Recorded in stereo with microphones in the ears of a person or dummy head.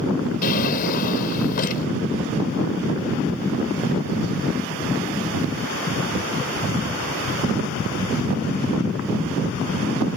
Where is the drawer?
50° left (ahead or behind).